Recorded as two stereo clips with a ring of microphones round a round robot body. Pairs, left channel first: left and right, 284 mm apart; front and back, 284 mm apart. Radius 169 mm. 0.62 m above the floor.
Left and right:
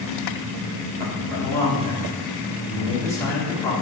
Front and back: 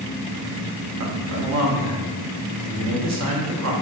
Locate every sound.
1.0 s a man speaking: 170° left, 1.1 m